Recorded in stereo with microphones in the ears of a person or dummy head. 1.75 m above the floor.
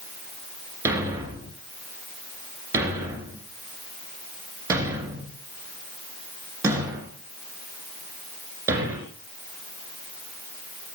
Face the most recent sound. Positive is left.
turn(degrees=-15)  # may be behind; listen again after turning